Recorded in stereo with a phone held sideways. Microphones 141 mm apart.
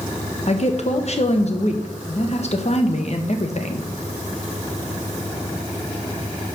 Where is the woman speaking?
55° left (ahead or behind), 1.1 m.